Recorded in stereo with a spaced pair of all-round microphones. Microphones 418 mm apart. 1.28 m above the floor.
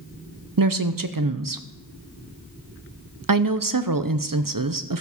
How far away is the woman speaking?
About 0.7 m.